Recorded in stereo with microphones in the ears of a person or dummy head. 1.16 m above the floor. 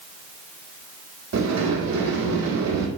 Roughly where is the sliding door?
Right.